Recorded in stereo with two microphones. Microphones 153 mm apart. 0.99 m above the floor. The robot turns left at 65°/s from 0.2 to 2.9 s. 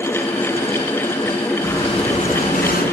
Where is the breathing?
165° left, 2.5 m; by 2.8 s 85° left, 2.5 m.